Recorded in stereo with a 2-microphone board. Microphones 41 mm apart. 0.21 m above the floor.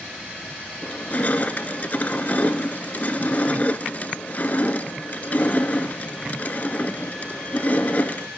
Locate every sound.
0.8 s crushing: 40° left (ahead or behind), 0.6 m